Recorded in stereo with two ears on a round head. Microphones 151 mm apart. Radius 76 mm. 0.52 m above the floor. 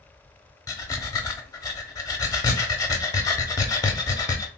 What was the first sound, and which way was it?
Breathing, 20° left (ahead or behind).